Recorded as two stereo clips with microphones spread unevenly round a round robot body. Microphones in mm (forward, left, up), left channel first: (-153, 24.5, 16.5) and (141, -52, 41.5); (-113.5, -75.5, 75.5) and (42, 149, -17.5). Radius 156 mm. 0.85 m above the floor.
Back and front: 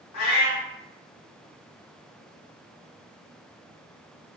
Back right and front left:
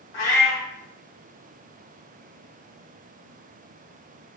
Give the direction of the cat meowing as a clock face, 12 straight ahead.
5 o'clock.